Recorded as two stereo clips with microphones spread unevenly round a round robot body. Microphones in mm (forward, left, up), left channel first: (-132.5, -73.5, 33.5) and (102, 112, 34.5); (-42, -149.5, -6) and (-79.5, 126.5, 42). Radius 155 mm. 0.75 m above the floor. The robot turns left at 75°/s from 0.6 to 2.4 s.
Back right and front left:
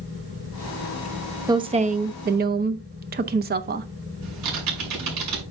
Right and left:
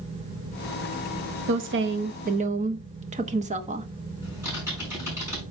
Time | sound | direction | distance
1.5 | a woman speaking | 105° left | 0.8 m
4.2 | typing on a keyboard | 15° left | 6 m